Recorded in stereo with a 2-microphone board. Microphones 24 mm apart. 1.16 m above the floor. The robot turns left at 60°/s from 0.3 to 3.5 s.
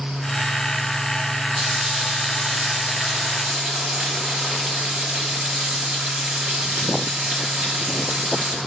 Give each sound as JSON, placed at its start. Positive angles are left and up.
{"t": 1.6, "sound": "frying", "azimuth_deg": -5, "distance_m": 5.5}